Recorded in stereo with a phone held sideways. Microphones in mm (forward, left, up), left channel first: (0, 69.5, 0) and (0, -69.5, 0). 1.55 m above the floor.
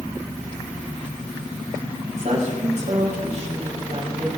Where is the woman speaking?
60° right (ahead or behind), 4.5 m.